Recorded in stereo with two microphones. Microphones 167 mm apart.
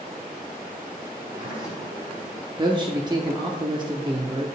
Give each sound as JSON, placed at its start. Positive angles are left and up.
{"t": 1.1, "sound": "a sliding door", "side_deg": -5, "distance_m": 4.0}
{"t": 2.6, "sound": "a man speaking", "side_deg": -30, "distance_m": 0.8}